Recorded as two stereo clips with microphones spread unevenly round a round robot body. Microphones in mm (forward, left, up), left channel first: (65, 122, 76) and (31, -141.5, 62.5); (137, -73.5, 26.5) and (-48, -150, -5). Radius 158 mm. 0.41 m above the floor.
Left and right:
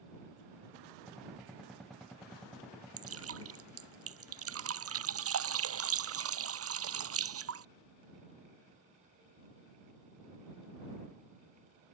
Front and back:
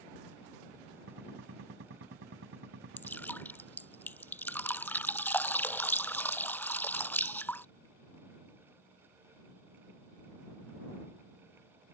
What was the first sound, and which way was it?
A gunshot, 175° left.